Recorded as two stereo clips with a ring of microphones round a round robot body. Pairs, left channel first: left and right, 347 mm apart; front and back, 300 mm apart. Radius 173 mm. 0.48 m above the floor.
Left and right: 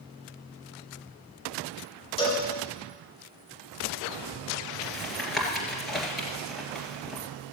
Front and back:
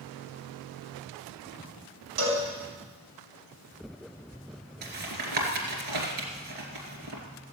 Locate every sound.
2.2 s a cowbell: 165° left, 3.5 m
4.8 s tapping: straight behind, 2.5 m